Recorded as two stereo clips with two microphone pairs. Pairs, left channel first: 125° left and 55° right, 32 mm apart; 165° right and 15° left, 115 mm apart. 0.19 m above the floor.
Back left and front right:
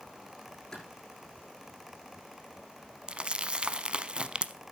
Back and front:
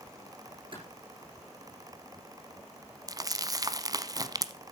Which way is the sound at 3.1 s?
20° right.